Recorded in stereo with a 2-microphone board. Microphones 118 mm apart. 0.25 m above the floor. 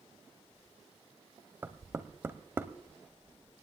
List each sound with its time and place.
1.6 s knocking: 20° right (ahead or behind), 0.6 m